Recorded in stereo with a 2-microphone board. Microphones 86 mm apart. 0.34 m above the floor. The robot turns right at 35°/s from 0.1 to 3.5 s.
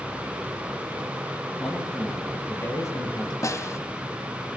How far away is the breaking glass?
I don't hear breaking glass.